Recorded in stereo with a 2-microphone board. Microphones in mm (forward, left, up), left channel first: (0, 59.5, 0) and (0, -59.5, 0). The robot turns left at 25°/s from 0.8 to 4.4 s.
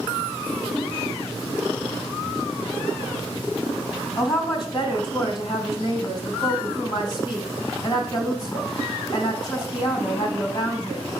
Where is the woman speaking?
35° left (ahead or behind), 2.5 m; by 11.1 s 40° left (ahead or behind), 2.5 m.